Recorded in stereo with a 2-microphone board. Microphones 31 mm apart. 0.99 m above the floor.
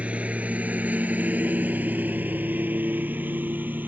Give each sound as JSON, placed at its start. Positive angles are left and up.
{"t": 0.0, "sound": "a lawn mower", "side_deg": -45}